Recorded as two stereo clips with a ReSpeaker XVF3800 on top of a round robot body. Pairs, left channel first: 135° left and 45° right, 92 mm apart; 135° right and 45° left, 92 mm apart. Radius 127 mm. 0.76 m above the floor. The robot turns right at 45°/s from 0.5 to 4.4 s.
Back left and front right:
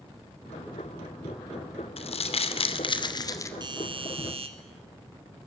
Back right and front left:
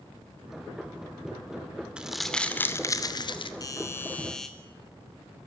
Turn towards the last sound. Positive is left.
turn(degrees=-50)